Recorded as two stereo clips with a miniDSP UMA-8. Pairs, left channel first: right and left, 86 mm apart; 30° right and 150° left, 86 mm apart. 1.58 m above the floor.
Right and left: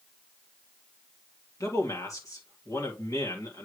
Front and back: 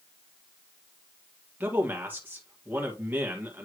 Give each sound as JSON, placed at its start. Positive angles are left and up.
{"t": 1.6, "sound": "a man speaking", "azimuth_deg": -140, "distance_m": 2.0}